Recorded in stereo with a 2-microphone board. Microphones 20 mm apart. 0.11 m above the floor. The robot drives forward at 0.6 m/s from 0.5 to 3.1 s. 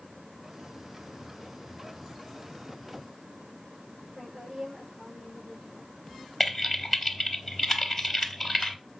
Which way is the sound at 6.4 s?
Centre (ahead or behind).